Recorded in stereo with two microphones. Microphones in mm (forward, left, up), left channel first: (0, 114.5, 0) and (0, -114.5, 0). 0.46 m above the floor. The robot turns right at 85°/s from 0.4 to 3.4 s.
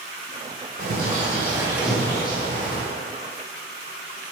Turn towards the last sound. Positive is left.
turn(degrees=125)